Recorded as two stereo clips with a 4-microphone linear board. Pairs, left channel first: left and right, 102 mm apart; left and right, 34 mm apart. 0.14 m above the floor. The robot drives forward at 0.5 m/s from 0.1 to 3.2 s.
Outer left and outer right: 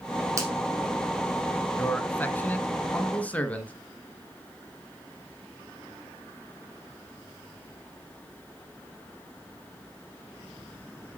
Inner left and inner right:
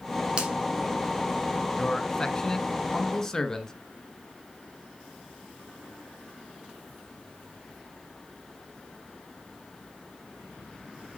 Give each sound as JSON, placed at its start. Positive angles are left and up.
{"t": 0.4, "sound": "a finger snap", "side_deg": -30, "distance_m": 4.0}
{"t": 1.8, "sound": "a man speaking", "side_deg": 20, "distance_m": 1.3}